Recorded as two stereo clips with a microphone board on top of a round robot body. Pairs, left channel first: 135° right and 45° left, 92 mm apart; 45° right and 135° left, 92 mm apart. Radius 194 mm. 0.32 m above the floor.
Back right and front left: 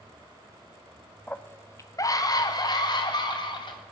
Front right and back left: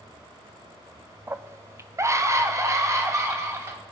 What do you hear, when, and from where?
1.3 s a scream: 165° left, 0.9 m; by 3.8 s 170° right, 3 m